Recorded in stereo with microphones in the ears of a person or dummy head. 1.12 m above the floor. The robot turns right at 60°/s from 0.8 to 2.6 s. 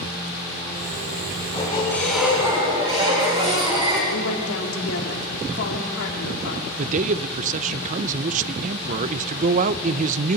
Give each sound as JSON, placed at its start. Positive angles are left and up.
{"t": 1.4, "sound": "a squeak", "azimuth_deg": 130, "distance_m": 6.0}
{"t": 4.1, "sound": "a woman speaking", "side_deg": 80, "distance_m": 3.5}
{"t": 6.8, "sound": "a man speaking", "side_deg": -45, "distance_m": 0.7}